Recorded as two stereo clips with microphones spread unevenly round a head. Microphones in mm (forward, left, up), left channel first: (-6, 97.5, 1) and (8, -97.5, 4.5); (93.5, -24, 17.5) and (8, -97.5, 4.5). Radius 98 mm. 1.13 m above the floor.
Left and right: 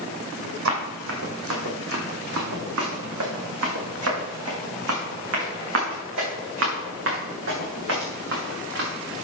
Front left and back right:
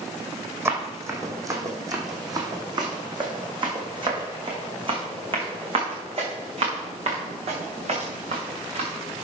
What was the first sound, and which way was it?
Running footsteps, 70° right.